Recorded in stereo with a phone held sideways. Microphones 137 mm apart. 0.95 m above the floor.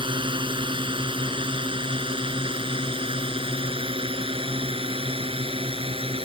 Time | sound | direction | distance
0.0 | a drone | 35° right (ahead or behind) | ?